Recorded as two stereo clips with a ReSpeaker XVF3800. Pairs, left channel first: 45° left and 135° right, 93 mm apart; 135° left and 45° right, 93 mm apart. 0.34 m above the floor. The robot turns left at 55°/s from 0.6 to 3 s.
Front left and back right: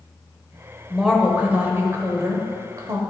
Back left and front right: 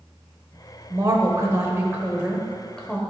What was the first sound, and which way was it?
A woman speaking, 45° right.